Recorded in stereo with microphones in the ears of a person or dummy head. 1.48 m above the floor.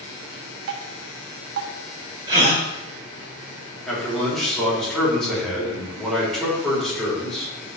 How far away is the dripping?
About 0.9 m.